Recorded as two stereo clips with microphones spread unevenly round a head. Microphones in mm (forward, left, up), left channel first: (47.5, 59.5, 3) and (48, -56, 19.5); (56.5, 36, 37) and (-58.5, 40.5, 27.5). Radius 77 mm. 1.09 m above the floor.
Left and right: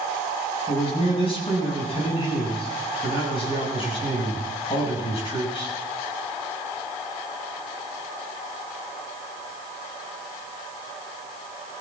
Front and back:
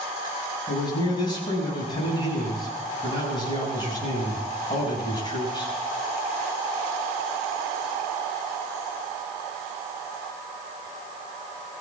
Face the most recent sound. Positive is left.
turn(degrees=50)